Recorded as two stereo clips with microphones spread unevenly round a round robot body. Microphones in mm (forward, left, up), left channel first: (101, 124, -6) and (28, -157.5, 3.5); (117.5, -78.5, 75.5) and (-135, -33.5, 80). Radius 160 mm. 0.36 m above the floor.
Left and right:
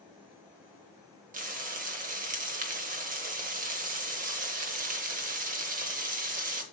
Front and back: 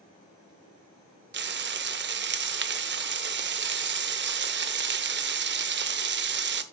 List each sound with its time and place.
1.3 s frying: 160° right, 1.0 m